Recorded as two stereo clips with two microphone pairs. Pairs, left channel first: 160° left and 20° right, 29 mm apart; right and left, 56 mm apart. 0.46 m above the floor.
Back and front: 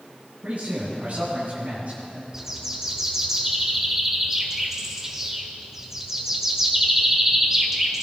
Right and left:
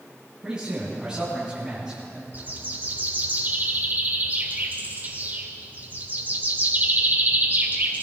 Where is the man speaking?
15° left, 3.5 m.